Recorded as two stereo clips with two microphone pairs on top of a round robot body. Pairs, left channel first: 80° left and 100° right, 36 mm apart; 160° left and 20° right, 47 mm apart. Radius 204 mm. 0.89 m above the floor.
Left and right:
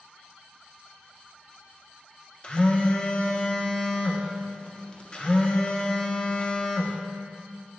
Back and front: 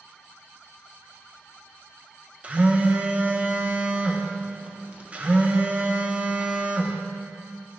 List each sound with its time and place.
2.4 s a phone buzzing: 35° left, 1.1 m